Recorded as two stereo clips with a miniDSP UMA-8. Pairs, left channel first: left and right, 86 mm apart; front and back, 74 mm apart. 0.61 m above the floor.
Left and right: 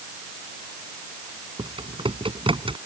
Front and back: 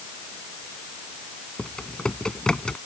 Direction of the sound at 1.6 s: 80° right.